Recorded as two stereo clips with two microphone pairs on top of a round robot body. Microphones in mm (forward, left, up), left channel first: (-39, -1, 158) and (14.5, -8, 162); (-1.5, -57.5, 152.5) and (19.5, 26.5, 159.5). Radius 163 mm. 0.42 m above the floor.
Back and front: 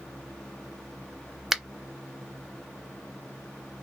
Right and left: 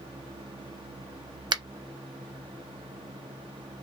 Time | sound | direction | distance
1.5 | a finger snap | 80° left | 0.7 m